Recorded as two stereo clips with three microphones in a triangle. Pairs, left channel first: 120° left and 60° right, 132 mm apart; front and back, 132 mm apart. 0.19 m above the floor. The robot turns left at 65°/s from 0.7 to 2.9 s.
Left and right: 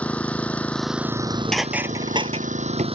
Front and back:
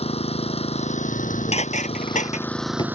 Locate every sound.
0.0 s an engine running: 40° left; by 3.0 s 105° right
1.1 s dishes clattering: 65° left; by 3.0 s 55° right